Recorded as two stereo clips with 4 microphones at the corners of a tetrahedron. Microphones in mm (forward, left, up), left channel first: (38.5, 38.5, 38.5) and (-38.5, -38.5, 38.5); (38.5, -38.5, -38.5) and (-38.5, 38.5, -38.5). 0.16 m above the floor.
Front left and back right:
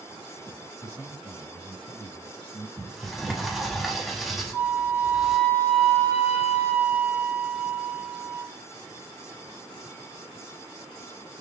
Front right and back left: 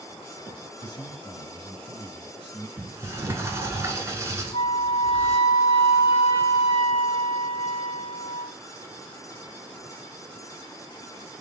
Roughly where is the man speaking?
Ahead.